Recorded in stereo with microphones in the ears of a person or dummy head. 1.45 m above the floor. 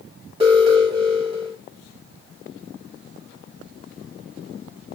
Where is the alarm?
30° right (ahead or behind), 1.5 m.